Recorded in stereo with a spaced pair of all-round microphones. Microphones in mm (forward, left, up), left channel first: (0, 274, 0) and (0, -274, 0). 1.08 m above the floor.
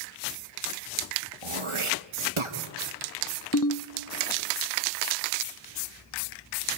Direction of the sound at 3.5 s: 35° left (ahead or behind).